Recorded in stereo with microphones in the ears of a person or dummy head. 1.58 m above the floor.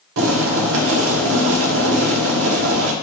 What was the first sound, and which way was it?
Boiling, 70° right (ahead or behind).